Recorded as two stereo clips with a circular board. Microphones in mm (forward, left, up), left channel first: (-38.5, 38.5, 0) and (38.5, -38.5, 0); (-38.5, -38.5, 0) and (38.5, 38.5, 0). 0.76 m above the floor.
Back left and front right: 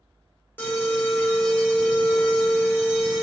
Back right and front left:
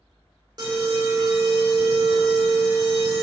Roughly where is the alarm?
Left.